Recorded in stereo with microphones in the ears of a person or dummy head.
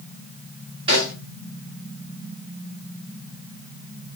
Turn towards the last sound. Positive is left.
turn(degrees=-30)  # may be behind; listen again after turning